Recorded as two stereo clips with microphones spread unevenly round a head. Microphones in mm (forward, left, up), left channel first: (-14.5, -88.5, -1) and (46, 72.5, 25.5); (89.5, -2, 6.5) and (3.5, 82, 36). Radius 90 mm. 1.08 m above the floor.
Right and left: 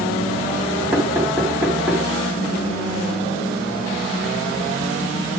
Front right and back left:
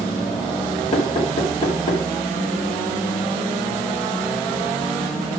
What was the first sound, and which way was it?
Knocking, 10° right.